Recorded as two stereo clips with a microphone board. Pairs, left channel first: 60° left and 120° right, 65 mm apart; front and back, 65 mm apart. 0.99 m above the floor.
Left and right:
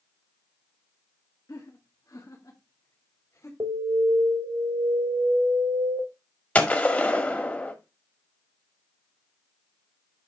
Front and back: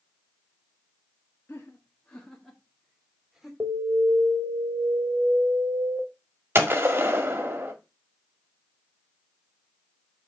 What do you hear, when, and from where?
1.5 s laughter: 55° left, 1.5 m; by 3.5 s 95° left, 3 m
3.6 s an alarm: 125° right, 3 m
6.5 s a gunshot: 125° left, 1.7 m